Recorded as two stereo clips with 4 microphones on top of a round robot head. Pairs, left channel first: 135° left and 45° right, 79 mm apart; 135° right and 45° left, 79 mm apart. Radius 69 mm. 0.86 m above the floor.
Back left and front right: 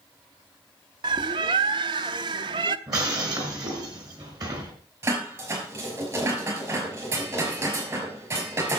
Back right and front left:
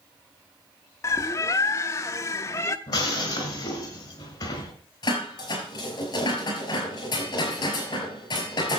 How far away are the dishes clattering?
About 5 m.